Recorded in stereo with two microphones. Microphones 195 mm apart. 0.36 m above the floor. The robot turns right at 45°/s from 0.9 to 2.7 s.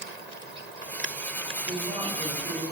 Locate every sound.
1.7 s a woman speaking: 10° right (ahead or behind), 0.9 m; by 2.6 s 25° right (ahead or behind), 0.9 m